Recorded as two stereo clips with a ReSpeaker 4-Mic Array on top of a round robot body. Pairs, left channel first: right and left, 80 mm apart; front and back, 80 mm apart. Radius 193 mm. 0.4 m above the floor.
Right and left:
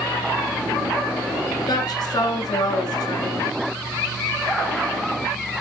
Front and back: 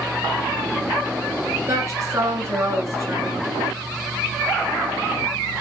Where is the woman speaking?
130° right, 7 m.